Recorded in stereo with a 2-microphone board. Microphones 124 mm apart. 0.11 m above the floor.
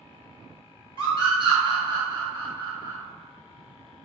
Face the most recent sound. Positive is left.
turn(degrees=-35)  # may be behind; listen again after turning